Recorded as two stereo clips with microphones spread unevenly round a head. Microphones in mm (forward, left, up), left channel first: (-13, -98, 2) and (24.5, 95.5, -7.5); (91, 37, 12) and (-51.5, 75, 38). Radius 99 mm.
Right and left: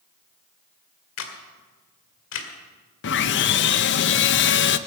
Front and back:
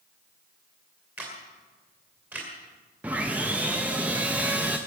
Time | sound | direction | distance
1.2 | a camera shutter | 115° right | 2.0 m
3.0 | sawing | 120° right | 0.6 m